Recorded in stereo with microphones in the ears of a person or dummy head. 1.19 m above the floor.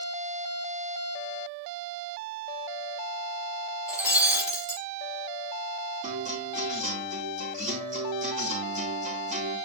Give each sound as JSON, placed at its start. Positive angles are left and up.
{"t": 3.9, "sound": "breaking glass", "side_deg": -5, "distance_m": 2.5}
{"t": 6.0, "sound": "a guitar", "side_deg": -45, "distance_m": 2.5}